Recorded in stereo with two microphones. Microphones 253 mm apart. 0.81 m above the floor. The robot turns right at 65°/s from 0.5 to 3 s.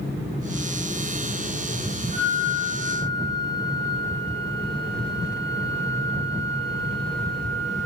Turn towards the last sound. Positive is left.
turn(degrees=-95)